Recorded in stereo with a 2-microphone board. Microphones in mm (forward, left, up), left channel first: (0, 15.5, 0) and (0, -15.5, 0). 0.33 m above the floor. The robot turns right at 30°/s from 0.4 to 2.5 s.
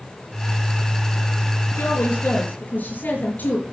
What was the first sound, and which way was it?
A woman speaking, 75° left (ahead or behind).